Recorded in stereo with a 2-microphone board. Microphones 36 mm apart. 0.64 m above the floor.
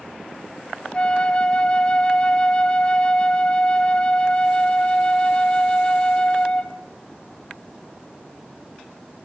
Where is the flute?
30° left (ahead or behind), 1.1 m.